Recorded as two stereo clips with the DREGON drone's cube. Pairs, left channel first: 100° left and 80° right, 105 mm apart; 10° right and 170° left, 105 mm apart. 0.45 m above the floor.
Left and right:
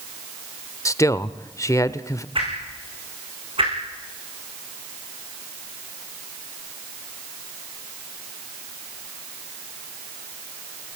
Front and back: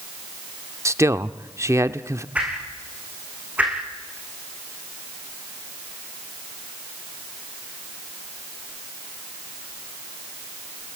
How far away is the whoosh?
About 7 m.